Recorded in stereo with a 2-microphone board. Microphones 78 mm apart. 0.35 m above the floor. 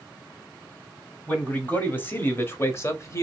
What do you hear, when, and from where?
1.3 s a man speaking: 20° left (ahead or behind), 1.9 m; by 3.2 s 35° left (ahead or behind), 1.1 m